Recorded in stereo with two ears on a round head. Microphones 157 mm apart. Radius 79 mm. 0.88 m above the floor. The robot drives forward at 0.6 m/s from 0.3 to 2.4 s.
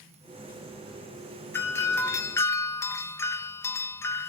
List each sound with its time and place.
1.5 s a doorbell: 15° left (ahead or behind), 1.3 m